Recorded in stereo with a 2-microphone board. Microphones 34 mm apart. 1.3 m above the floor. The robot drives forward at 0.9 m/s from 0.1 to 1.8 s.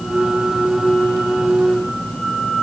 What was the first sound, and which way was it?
Only background noise.